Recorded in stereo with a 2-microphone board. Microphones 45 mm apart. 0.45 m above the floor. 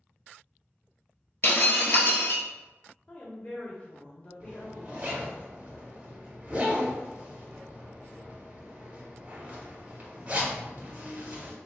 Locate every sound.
1.4 s breaking glass: 55° left (ahead or behind), 0.6 m
3.1 s a woman speaking: 30° left (ahead or behind), 1.0 m
4.4 s a zipper: 35° right (ahead or behind), 0.9 m